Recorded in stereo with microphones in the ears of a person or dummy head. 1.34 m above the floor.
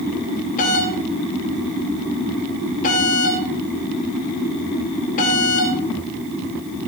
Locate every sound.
0.6 s a doorbell: 45° left (ahead or behind), 2.5 m